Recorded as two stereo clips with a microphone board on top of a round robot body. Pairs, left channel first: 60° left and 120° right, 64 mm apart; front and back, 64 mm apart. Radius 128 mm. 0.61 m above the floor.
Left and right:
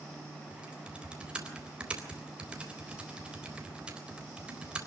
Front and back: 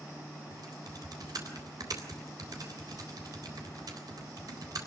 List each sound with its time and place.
0.5 s typing on a keyboard: 165° left, 3.5 m